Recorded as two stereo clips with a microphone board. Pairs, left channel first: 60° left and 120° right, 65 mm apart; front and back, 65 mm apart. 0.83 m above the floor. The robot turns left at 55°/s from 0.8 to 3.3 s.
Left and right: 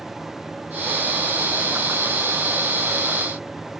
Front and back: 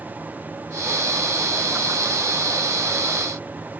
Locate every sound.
Only background noise.